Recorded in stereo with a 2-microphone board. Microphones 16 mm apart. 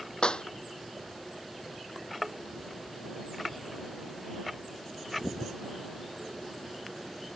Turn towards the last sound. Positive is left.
turn(degrees=65)  # may be behind; listen again after turning